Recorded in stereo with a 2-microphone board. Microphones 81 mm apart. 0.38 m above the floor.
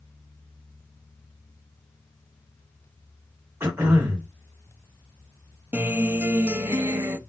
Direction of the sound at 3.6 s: 30° right (ahead or behind).